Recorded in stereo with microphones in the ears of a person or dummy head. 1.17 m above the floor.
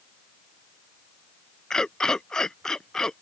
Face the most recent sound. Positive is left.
turn(degrees=0)  # may be behind; listen again after turning